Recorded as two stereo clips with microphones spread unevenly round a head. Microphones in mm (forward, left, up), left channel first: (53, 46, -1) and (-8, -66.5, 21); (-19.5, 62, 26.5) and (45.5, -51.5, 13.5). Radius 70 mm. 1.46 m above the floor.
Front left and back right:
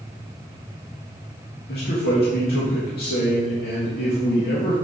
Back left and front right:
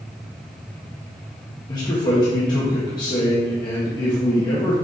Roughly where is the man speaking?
Ahead left.